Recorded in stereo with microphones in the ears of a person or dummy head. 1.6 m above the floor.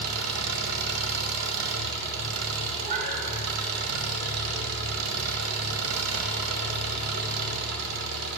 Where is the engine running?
75° right (ahead or behind), 1.5 m.